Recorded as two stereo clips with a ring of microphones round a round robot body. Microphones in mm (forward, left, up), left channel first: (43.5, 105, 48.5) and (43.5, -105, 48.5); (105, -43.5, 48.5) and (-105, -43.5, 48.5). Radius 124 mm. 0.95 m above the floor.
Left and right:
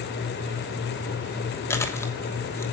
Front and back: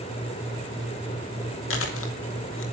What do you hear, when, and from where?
1.7 s chewing: 15° left, 3 m